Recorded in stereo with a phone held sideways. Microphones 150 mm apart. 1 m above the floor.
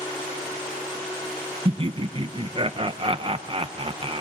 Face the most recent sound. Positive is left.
turn(degrees=-35)  # may be behind; listen again after turning